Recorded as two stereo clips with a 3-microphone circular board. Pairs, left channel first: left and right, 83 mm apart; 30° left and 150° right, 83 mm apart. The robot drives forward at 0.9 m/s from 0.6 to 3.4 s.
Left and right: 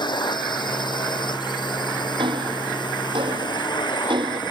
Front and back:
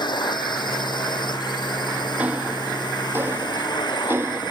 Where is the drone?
60° left.